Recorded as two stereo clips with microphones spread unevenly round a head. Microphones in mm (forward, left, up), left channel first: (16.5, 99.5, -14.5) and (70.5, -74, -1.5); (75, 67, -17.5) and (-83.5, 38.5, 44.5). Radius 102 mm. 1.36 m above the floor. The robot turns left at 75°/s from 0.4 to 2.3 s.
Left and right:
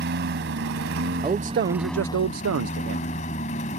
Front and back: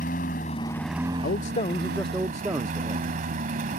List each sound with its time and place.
0.0 s a lawn mower: 50° right; by 3.8 s 165° left
1.2 s a man speaking: 5° right; by 3.1 s 85° right